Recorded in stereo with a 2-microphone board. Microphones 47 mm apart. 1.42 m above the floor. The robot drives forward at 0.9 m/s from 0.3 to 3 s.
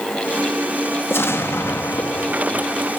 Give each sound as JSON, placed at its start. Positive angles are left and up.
{"t": 1.1, "sound": "an explosion", "side_deg": 65, "distance_m": 1.7}